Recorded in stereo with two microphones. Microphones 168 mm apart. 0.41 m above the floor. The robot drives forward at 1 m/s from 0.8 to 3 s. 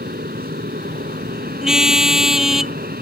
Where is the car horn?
5° right (ahead or behind).